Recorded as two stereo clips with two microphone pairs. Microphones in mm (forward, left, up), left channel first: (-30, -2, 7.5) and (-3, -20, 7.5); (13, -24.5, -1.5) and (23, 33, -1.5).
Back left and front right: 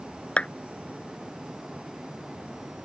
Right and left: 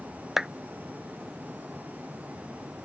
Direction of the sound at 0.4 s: 155° left.